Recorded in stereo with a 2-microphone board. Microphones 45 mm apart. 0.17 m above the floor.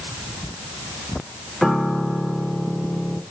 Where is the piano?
Centre (ahead or behind), 0.9 m.